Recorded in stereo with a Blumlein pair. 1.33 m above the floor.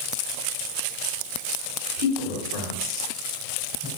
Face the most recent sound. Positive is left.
turn(degrees=0)